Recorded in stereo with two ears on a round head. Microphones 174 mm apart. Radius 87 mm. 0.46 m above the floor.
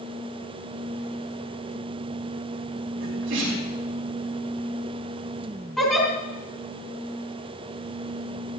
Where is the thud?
No thud in this recording.